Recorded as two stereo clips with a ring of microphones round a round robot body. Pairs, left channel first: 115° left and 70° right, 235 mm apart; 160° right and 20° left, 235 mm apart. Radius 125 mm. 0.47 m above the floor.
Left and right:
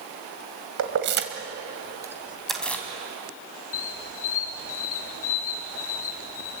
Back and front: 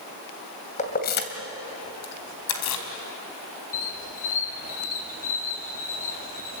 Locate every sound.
0.8 s keys jangling: 95° right, 2.5 m; by 2.9 s 165° right, 3.5 m
3.7 s a squeak: 145° left, 2 m